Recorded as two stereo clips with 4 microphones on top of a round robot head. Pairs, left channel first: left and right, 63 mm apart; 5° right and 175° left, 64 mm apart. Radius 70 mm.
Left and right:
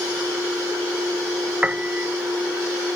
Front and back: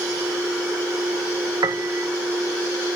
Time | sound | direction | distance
1.6 | a piano | 160° right | ?